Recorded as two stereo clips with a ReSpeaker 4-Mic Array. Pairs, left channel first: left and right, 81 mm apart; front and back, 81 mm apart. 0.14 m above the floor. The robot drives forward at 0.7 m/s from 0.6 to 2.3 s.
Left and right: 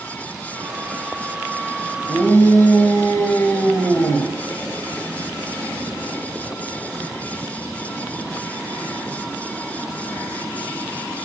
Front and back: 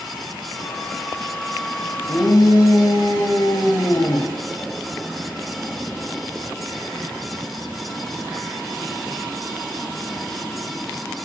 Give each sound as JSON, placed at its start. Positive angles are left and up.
{"t": 2.1, "sound": "a shout", "azimuth_deg": 35, "distance_m": 3.0}